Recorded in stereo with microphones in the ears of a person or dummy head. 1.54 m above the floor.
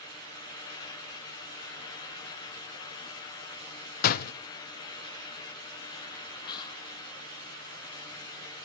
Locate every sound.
4.0 s a door slam: 50° left (ahead or behind), 0.7 m
6.5 s whispering: 25° left (ahead or behind), 0.7 m